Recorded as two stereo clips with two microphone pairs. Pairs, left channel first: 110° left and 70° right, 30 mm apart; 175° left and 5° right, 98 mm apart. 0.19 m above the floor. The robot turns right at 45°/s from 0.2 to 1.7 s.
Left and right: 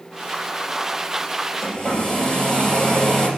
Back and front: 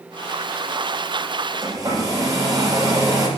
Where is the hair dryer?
35° left, 3 m; by 3.3 s 40° left, 3 m.